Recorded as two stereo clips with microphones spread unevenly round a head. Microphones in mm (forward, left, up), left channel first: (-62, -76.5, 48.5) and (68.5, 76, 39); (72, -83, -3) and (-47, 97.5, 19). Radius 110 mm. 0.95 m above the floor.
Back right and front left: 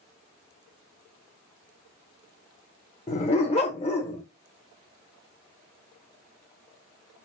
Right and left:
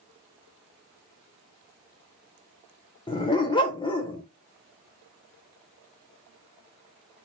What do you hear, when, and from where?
3.1 s a dog barking: 115° right, 0.6 m